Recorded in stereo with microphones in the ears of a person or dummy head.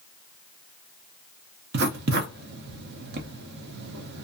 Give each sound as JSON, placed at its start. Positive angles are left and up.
{"t": 1.7, "sound": "writing", "side_deg": -55, "distance_m": 0.6}